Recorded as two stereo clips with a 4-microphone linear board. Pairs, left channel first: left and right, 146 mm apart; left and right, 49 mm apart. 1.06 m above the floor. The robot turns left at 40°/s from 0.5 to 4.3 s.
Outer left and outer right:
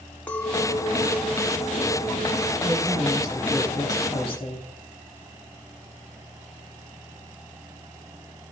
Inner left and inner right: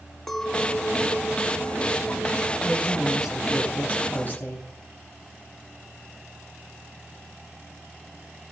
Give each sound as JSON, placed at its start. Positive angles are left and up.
{"t": 0.3, "sound": "a clink", "azimuth_deg": 10, "distance_m": 1.1}
{"t": 2.6, "sound": "a woman speaking", "azimuth_deg": -150, "distance_m": 9.5}